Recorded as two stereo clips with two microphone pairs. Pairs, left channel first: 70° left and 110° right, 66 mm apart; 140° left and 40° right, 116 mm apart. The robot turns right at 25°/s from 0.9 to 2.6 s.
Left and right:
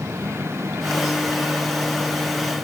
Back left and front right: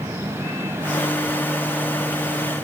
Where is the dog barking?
No dog barking in this recording.